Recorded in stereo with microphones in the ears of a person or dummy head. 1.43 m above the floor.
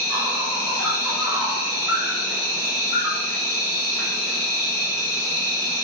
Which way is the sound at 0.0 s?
5° right (ahead or behind).